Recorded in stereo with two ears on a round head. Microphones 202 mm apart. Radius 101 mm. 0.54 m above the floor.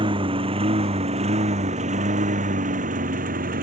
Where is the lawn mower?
25° right (ahead or behind); by 3.6 s 40° right (ahead or behind).